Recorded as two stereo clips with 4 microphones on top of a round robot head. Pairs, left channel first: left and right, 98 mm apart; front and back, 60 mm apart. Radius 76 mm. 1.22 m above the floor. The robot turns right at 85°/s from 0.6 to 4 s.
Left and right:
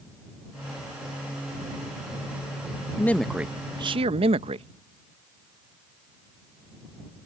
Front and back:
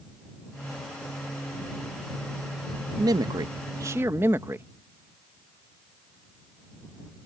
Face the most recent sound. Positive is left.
turn(degrees=-120)